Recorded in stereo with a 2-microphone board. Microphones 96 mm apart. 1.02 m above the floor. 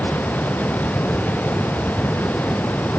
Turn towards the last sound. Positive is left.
No sound to turn to.